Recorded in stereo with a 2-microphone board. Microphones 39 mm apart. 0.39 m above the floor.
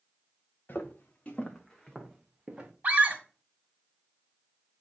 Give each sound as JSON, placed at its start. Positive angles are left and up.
{"t": 0.7, "sound": "footsteps", "side_deg": 55, "distance_m": 1.3}
{"t": 2.8, "sound": "a scream", "side_deg": -45, "distance_m": 1.9}